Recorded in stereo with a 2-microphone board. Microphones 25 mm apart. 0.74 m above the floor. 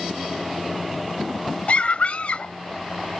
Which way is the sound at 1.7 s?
55° left (ahead or behind).